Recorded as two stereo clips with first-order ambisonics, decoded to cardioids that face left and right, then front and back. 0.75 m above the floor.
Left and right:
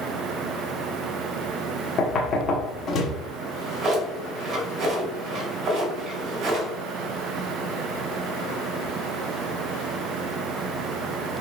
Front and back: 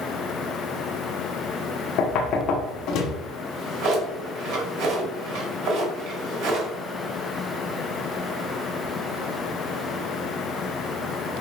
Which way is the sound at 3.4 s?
145° right.